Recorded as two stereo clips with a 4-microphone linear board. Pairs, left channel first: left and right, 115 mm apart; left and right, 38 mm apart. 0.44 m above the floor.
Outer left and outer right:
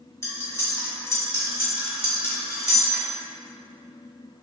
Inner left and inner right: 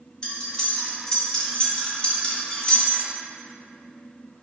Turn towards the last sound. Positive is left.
turn(degrees=20)  # may be behind; listen again after turning